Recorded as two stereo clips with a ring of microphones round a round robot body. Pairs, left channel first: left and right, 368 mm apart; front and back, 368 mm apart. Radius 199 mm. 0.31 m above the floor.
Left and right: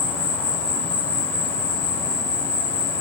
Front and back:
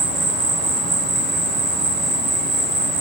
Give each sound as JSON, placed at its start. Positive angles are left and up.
{"t": 0.0, "sound": "an insect", "azimuth_deg": 170, "distance_m": 1.1}